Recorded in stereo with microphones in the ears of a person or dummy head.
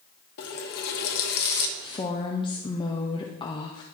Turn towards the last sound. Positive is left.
turn(degrees=20)  # may be behind; listen again after turning